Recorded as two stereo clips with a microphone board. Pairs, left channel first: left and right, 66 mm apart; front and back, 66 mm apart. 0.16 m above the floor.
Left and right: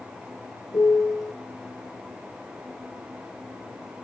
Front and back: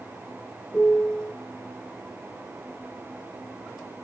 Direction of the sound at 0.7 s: 75° left.